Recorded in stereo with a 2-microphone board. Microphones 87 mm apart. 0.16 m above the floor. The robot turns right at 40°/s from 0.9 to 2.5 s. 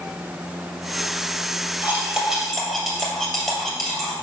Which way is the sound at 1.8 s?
25° right (ahead or behind).